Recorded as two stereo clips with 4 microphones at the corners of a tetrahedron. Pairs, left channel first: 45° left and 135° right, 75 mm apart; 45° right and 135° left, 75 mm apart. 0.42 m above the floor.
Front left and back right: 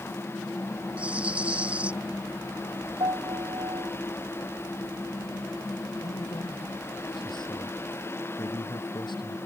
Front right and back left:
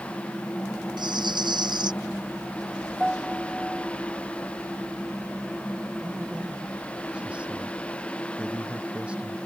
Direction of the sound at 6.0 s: 60° left.